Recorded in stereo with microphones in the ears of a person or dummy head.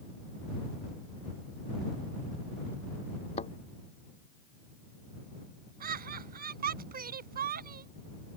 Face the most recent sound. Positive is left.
turn(degrees=-40)  # may be behind; listen again after turning